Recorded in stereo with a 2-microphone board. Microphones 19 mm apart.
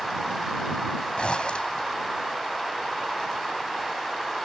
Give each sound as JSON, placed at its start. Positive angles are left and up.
{"t": 1.2, "sound": "a zipper", "side_deg": 70}